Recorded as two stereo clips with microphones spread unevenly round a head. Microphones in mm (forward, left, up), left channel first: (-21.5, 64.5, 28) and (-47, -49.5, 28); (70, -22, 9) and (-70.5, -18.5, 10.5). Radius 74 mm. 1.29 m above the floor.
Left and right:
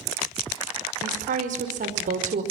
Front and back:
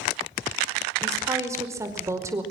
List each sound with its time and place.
1.0 s a woman speaking: 110° right, 5 m